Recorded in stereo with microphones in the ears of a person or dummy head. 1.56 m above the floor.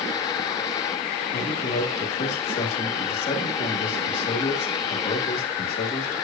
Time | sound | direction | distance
1.3 | a man speaking | 45° left (ahead or behind) | 3 m